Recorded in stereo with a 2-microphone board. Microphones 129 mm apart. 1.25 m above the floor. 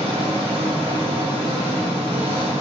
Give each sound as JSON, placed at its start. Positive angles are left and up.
{"t": 0.0, "sound": "an engine running", "side_deg": -45, "distance_m": 1.4}